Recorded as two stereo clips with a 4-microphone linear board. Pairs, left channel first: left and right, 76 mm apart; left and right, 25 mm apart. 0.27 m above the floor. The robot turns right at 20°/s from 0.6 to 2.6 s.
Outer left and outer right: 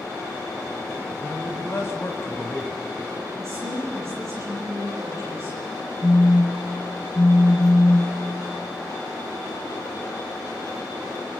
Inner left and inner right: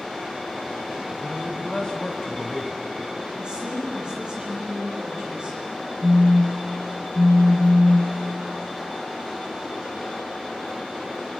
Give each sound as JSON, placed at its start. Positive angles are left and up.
{"t": 1.2, "sound": "a man speaking", "side_deg": 40, "distance_m": 2.0}
{"t": 3.4, "sound": "a woman speaking", "side_deg": -35, "distance_m": 8.5}
{"t": 6.0, "sound": "a phone buzzing", "side_deg": 30, "distance_m": 0.8}